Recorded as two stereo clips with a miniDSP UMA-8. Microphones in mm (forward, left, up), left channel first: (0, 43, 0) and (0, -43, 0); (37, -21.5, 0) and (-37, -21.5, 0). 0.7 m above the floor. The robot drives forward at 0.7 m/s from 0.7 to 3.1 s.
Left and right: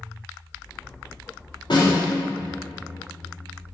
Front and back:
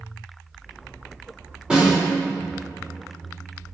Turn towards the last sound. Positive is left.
turn(degrees=120)